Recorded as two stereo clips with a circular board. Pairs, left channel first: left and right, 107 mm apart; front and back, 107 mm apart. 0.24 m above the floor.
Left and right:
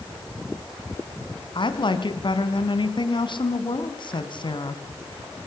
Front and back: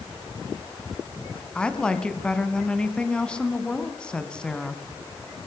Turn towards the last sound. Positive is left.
turn(degrees=80)